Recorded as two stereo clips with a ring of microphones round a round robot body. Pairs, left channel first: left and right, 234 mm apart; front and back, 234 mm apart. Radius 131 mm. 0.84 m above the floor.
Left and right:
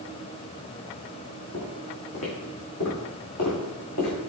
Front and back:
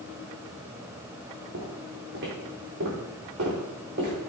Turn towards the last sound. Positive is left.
turn(degrees=125)